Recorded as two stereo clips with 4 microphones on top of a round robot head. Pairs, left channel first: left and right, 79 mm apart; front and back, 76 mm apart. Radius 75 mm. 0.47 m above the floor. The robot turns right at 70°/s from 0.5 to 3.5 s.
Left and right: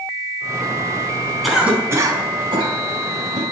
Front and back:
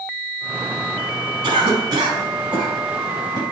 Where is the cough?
Straight behind, 5 m; by 3.4 s 40° right, 5 m.